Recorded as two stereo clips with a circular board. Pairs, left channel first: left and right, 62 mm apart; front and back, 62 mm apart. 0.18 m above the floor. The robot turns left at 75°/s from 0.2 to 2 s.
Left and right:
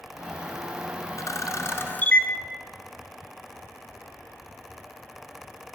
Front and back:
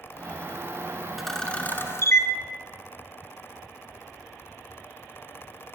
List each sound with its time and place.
1.2 s a camera shutter: 95° left, 1.2 m; by 2.3 s 30° left, 1.2 m